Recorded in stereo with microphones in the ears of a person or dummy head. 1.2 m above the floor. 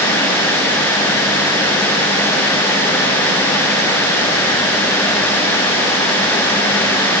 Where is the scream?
No scream in this recording.